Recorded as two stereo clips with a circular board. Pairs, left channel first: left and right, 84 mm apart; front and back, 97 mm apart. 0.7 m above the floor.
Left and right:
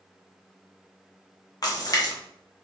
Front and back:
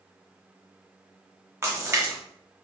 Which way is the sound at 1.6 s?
120° left.